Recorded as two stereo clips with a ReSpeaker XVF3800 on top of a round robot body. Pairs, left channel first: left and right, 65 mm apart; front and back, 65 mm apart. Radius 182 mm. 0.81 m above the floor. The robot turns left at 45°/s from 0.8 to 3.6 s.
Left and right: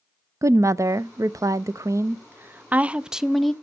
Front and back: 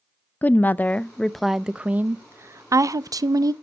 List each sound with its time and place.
0.4 s a woman speaking: 60° right, 0.6 m; by 3.5 s 175° left, 0.6 m